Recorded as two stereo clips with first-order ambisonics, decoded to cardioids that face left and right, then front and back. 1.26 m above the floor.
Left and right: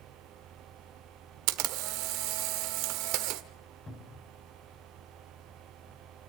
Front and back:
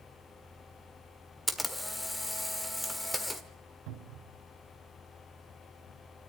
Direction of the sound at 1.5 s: 85° right.